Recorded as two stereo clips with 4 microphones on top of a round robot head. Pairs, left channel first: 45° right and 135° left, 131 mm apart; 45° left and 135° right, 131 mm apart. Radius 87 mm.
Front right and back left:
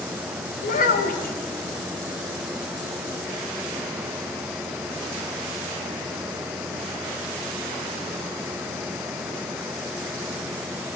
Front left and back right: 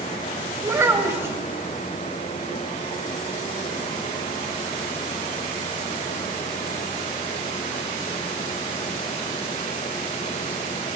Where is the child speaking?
60° right, 2.5 m.